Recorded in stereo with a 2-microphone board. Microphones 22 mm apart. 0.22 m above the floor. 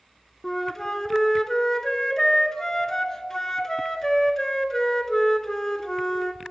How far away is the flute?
About 0.5 m.